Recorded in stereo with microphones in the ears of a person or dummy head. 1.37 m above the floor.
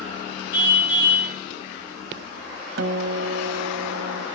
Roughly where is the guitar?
Right.